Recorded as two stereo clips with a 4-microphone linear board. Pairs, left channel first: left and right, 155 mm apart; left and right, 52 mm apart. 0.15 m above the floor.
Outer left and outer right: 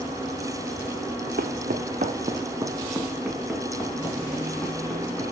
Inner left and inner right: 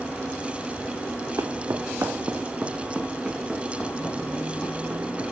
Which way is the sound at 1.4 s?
80° right.